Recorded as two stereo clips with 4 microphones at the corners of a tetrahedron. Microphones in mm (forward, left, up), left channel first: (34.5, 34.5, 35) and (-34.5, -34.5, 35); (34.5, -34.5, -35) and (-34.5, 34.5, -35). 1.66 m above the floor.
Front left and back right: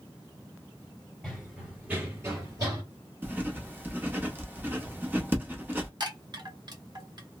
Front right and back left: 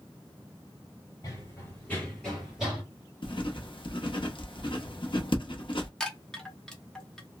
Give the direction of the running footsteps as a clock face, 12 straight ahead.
1 o'clock.